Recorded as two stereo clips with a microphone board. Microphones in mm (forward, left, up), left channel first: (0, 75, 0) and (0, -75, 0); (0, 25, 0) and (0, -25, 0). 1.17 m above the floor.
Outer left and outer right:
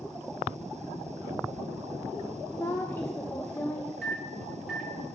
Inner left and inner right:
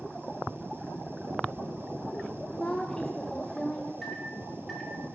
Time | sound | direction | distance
2.5 | a woman speaking | 15° left (ahead or behind) | 0.6 m
4.0 | a microwave | 5° right (ahead or behind) | 1.5 m